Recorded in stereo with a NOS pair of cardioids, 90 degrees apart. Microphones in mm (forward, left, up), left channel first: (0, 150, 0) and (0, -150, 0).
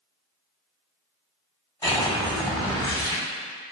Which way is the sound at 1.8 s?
10° left.